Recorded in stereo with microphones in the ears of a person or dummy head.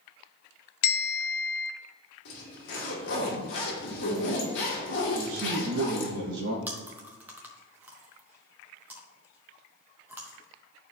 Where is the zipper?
60° left (ahead or behind), 1.9 m.